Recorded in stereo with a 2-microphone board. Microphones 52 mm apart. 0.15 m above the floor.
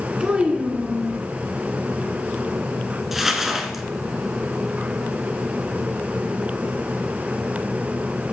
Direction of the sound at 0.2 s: 20° right (ahead or behind).